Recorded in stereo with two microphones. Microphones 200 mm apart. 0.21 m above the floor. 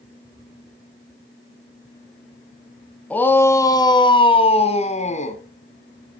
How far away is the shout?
About 1.5 m.